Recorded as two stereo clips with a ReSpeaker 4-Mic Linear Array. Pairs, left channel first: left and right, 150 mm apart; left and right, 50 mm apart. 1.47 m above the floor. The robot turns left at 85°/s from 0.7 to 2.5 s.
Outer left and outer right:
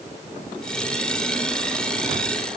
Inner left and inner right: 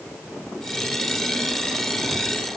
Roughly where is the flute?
No flute in this recording.